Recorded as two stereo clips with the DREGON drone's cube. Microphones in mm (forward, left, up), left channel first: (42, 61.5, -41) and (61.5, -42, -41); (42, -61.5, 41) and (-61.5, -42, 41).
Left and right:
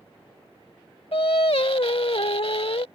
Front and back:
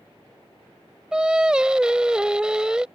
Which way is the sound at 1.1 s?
90° left.